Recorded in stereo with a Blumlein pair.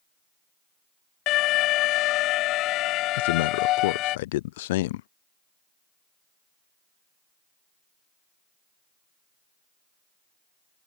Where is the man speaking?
55° left.